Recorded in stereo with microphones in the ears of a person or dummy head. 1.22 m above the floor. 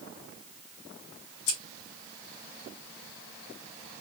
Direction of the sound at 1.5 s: 85° left.